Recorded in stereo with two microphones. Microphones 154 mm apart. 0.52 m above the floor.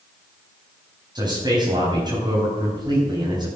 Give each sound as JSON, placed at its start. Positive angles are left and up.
{"t": 1.1, "sound": "a man speaking", "side_deg": -25, "distance_m": 4.0}